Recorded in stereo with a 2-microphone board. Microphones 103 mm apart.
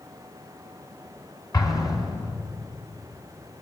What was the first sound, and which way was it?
An explosion, 35° left (ahead or behind).